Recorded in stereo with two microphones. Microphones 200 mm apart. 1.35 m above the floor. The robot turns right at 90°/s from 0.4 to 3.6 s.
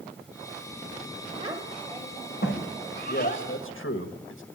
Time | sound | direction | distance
1.4 | a child speaking | 35° right (ahead or behind) | 5 m
3.1 | a man speaking | 50° left (ahead or behind) | 1.7 m